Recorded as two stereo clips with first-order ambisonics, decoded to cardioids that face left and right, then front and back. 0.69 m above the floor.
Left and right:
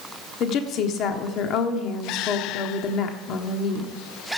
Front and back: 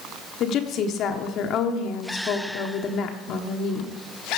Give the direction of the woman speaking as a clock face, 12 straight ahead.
10 o'clock.